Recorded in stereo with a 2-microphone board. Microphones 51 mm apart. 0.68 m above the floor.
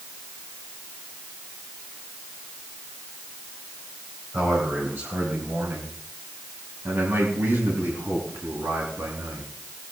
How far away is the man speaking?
About 4 m.